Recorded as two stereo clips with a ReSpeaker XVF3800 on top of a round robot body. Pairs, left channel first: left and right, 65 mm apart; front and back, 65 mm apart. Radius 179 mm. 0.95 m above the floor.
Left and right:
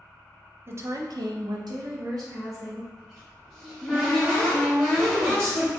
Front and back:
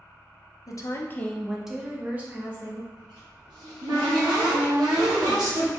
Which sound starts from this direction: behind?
A cupboard door, at 3.0 s.